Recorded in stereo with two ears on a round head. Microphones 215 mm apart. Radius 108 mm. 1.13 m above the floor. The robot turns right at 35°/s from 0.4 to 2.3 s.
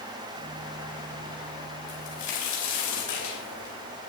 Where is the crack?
70° left (ahead or behind), 4.5 m; by 3.8 s 85° left, 4.5 m.